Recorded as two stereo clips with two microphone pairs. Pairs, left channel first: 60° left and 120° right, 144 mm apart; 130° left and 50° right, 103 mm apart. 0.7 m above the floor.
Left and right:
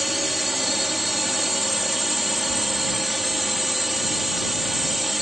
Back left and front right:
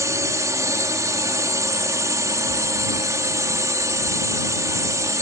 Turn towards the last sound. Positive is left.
turn(degrees=-30)